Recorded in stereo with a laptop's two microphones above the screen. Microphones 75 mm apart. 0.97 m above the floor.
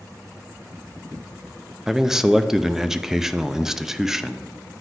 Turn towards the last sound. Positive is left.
turn(degrees=-5)  # may be behind; listen again after turning